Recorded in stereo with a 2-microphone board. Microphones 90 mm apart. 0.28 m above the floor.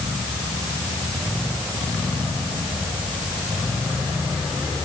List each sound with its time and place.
Only background noise.